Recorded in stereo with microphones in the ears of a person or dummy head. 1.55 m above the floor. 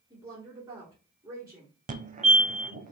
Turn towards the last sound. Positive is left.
turn(degrees=-40)  # may be behind; listen again after turning